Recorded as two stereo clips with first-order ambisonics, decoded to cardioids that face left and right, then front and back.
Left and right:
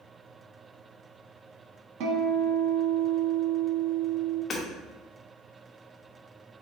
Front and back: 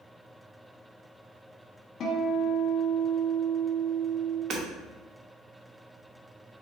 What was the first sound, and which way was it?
A guitar, 65° right.